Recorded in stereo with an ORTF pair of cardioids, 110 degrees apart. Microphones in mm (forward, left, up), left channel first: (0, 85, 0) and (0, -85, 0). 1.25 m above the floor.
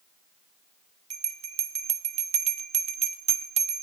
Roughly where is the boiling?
No boiling in this recording.